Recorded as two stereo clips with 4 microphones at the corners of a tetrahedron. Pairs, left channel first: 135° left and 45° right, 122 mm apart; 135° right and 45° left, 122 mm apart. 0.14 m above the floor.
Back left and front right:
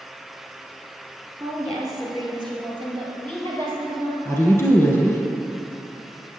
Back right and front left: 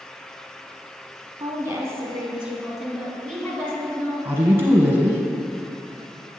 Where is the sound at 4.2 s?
95° left, 1.2 m.